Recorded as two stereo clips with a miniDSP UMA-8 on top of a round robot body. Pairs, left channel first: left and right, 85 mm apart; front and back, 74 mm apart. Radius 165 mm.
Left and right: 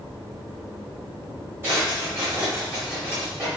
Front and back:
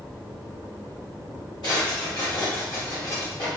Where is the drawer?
25° right, 2 m.